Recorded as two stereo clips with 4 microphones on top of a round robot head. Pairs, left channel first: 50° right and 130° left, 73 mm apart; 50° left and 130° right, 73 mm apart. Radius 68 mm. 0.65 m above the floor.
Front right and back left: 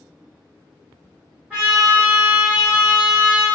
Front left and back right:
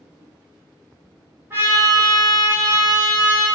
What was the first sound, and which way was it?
A trumpet, 175° right.